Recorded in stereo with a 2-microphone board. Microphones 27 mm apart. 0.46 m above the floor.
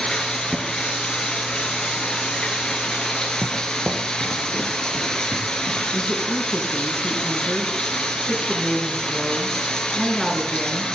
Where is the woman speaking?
Centre (ahead or behind), 5.5 m.